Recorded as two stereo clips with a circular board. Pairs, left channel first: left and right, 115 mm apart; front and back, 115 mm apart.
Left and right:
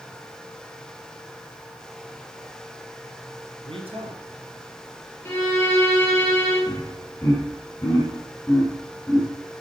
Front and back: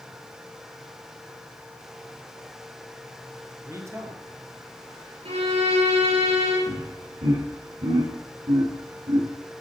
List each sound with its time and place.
3.6 s a man speaking: 120° right, 3 m
5.2 s a violin: 160° left, 7 m
6.7 s laughter: 165° left, 8 m